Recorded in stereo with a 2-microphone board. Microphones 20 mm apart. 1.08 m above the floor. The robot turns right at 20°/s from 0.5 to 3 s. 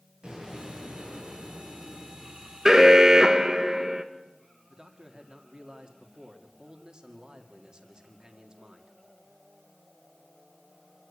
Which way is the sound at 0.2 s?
45° right.